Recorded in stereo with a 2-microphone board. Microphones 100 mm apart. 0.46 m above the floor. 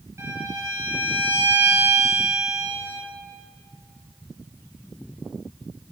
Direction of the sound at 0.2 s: 30° right (ahead or behind).